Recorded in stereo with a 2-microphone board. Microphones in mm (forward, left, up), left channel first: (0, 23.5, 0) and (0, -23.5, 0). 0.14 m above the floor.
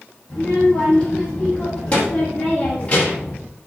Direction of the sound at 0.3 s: 25° left (ahead or behind).